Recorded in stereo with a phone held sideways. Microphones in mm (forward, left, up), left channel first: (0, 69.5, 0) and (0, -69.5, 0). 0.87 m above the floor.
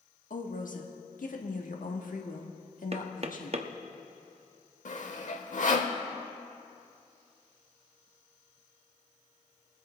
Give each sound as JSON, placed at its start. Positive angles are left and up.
{"t": 0.3, "sound": "a woman speaking", "side_deg": 70, "distance_m": 1.4}
{"t": 2.9, "sound": "knocking", "side_deg": -45, "distance_m": 0.7}
{"t": 4.8, "sound": "sawing", "side_deg": 60, "distance_m": 0.9}